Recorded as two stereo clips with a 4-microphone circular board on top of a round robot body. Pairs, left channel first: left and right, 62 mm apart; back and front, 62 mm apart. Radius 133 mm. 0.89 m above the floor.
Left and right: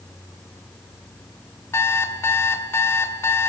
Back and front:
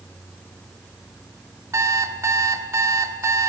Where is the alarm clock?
45° left, 1.5 m.